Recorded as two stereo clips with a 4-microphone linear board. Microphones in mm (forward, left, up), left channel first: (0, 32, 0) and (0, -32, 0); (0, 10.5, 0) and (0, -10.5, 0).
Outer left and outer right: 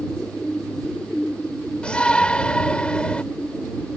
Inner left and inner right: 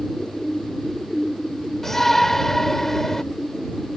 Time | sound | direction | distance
1.8 | a shout | 15° left (ahead or behind) | ?